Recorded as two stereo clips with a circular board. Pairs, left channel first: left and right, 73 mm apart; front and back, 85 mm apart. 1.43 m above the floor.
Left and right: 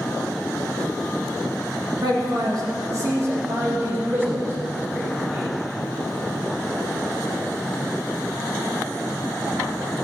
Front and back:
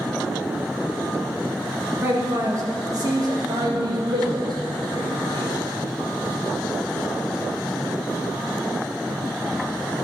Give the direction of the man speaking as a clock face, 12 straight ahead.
4 o'clock.